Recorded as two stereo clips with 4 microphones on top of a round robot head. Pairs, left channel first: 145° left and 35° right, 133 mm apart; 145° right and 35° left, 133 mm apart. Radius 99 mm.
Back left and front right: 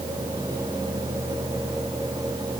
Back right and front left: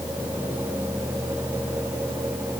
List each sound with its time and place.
Only background noise.